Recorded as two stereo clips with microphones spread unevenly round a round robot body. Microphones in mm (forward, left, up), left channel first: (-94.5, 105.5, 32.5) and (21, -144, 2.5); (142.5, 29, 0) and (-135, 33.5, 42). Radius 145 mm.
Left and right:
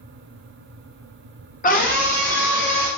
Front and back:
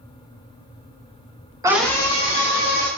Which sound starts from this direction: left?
A scream, at 1.6 s.